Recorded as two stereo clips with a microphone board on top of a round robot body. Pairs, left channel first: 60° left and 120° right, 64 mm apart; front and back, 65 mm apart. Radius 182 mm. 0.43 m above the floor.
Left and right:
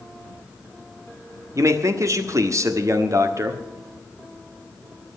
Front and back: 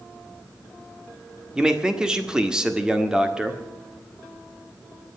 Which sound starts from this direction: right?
A man speaking, at 1.6 s.